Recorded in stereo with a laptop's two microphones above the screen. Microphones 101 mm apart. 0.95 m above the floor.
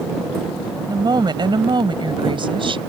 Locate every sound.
0.9 s a woman speaking: 40° right (ahead or behind); by 2.8 s 55° right (ahead or behind)